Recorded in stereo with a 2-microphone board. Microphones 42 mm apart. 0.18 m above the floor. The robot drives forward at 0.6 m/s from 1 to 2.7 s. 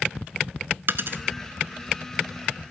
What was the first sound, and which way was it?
A dropped coin, 60° right (ahead or behind).